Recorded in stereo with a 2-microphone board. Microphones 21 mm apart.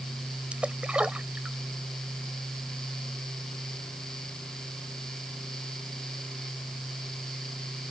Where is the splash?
85° right.